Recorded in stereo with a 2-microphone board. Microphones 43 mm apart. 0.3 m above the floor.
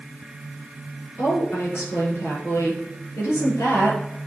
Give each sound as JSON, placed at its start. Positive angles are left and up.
{"t": 1.2, "sound": "a woman speaking", "side_deg": 75, "distance_m": 5.5}